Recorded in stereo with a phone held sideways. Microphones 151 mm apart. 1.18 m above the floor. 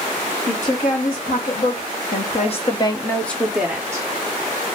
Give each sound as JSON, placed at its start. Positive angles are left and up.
{"t": 0.5, "sound": "a woman speaking", "side_deg": 70, "distance_m": 1.6}